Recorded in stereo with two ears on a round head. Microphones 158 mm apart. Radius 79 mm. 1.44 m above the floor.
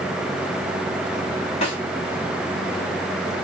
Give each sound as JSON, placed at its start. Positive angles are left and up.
{"t": 1.6, "sound": "a snare drum", "side_deg": 35, "distance_m": 2.0}